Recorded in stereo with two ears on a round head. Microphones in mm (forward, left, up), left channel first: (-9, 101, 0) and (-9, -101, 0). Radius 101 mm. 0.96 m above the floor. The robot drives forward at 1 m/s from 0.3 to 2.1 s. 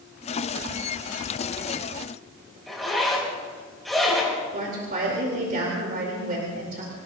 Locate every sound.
2.7 s a zipper: centre (ahead or behind), 6.5 m
4.5 s a woman speaking: 45° right (ahead or behind), 3.5 m